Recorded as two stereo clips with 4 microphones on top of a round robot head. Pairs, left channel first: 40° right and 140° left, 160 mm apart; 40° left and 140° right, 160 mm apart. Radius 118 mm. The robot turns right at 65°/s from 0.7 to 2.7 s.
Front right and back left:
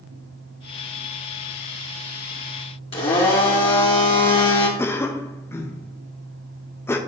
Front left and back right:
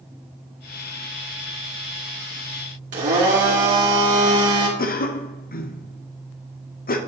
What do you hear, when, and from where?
2.9 s a blender: 95° right, 2.5 m
4.8 s a cough: 35° left, 0.9 m